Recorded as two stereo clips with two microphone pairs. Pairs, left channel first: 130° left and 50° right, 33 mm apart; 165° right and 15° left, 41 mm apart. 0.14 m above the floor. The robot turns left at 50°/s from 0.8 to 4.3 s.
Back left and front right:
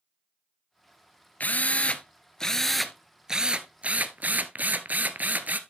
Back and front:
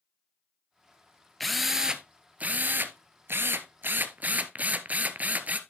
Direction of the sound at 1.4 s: 115° left.